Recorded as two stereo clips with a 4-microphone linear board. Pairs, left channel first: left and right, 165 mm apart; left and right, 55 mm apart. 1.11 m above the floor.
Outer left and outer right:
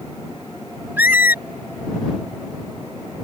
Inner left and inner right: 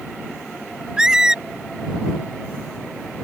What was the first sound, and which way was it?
A squeak, 10° right (ahead or behind).